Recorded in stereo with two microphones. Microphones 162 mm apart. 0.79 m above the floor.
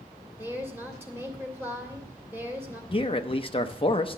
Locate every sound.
0.4 s a woman speaking: 15° right (ahead or behind), 2.5 m
2.9 s a man speaking: 35° left (ahead or behind), 0.6 m